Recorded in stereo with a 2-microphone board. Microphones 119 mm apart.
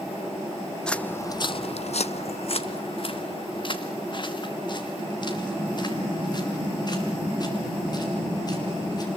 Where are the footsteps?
5° left (ahead or behind), 0.7 m; by 9.1 s 35° left (ahead or behind), 5.5 m.